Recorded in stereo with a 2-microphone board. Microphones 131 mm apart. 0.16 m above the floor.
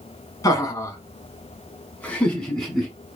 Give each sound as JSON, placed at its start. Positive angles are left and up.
{"t": 0.4, "sound": "laughter", "side_deg": 30, "distance_m": 1.2}